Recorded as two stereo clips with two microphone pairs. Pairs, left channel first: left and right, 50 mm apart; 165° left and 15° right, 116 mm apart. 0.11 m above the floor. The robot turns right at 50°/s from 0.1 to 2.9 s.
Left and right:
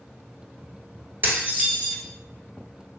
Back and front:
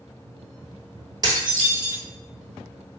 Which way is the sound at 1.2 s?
55° right.